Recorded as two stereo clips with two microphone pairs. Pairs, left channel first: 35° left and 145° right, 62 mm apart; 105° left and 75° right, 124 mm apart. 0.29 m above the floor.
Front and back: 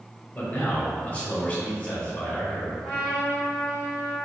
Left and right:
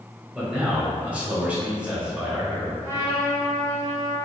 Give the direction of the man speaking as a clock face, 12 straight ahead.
12 o'clock.